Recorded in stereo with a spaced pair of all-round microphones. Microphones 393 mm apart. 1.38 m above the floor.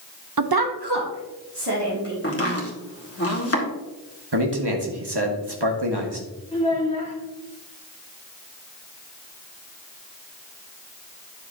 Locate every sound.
0.4 s a woman speaking: 50° right (ahead or behind), 0.6 m; by 2.1 s 75° right (ahead or behind), 3 m
2.2 s chopping: 35° left (ahead or behind), 1.6 m
4.3 s a man speaking: 80° right, 1.4 m
6.5 s a child speaking: 15° left (ahead or behind), 1.5 m